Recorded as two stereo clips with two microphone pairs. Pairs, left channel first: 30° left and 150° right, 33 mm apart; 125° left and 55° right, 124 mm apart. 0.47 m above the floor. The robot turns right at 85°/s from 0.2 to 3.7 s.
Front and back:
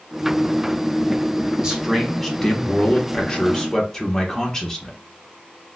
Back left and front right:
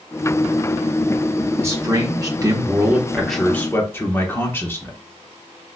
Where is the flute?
No flute in this recording.